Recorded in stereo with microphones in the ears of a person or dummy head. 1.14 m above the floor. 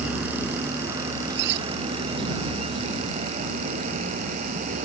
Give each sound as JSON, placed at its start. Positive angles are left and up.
{"t": 0.0, "sound": "a vehicle", "side_deg": -10}
{"t": 1.3, "sound": "cutlery clinking", "side_deg": -60}